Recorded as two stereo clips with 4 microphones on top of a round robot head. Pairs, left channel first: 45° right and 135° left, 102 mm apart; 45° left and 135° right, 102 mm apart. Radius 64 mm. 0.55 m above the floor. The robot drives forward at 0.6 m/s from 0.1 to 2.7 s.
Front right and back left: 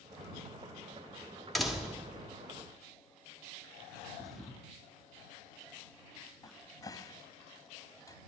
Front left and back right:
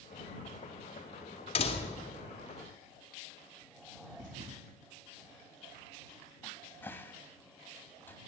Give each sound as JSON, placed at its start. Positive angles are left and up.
{"t": 1.6, "sound": "a door slam", "azimuth_deg": 40, "distance_m": 1.4}
{"t": 4.2, "sound": "a thud", "azimuth_deg": -135, "distance_m": 0.7}
{"t": 6.4, "sound": "a cupboard door", "azimuth_deg": -15, "distance_m": 0.8}